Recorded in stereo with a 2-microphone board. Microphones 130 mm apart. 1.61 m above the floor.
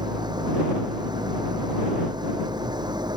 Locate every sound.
0.0 s an engine running: 35° right (ahead or behind)